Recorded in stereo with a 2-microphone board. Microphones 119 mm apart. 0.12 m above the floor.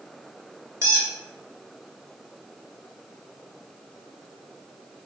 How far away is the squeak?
About 0.9 m.